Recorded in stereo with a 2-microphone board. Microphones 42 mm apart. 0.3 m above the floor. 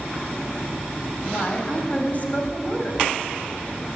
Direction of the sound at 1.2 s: 45° left (ahead or behind).